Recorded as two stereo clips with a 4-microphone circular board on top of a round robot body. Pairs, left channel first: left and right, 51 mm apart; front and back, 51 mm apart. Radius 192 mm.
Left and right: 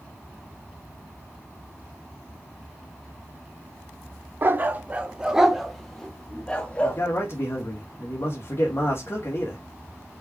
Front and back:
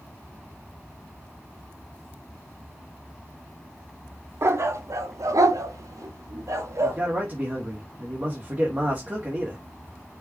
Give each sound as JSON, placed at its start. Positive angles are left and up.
{"t": 4.4, "sound": "a dog barking", "azimuth_deg": -140, "distance_m": 1.0}
{"t": 6.8, "sound": "a man speaking", "azimuth_deg": 125, "distance_m": 2.5}